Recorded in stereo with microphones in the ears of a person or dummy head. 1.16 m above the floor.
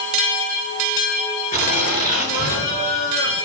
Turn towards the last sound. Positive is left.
turn(degrees=50)  # may be behind; listen again after turning